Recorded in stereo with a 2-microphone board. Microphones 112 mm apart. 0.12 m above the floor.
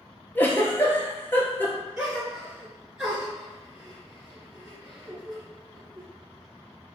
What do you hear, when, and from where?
0.3 s a giggle: 20° left (ahead or behind), 0.8 m
2.0 s a gasp: 10° right (ahead or behind), 1.6 m